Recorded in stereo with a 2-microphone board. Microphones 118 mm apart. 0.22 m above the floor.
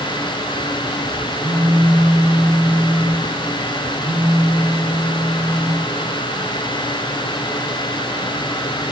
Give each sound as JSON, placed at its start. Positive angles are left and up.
{"t": 1.4, "sound": "a phone buzzing", "side_deg": -45, "distance_m": 1.1}